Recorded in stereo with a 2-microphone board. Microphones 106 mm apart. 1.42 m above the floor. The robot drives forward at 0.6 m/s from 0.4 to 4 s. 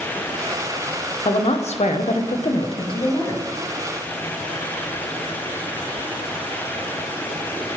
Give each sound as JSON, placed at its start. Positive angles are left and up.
{"t": 1.2, "sound": "a woman speaking", "side_deg": 55, "distance_m": 0.8}